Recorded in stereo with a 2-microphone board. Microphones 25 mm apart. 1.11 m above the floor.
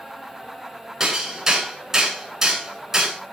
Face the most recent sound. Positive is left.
turn(degrees=-20)  # may be behind; listen again after turning